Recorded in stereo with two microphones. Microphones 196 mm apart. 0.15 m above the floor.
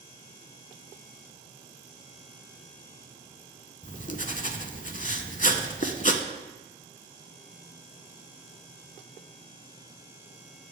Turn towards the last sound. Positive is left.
turn(degrees=40)  # may be behind; listen again after turning